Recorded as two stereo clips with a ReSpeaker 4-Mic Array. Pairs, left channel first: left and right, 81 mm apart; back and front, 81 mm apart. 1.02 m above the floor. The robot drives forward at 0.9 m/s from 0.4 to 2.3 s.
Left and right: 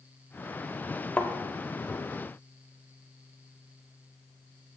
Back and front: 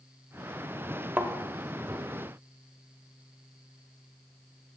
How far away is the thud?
About 0.8 m.